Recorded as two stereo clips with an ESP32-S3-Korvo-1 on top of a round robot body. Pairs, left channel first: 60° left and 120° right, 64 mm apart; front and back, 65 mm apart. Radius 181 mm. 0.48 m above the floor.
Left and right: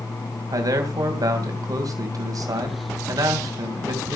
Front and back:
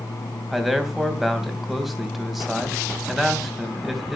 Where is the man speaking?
90° right, 3.5 m.